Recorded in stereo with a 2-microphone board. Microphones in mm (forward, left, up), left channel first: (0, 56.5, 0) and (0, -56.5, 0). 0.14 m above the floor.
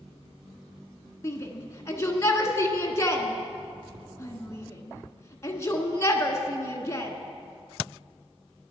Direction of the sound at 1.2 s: 25° left (ahead or behind).